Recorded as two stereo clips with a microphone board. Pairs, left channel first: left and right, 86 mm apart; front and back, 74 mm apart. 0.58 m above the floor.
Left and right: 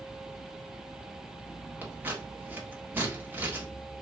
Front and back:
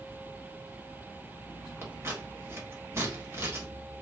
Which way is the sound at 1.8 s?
140° right.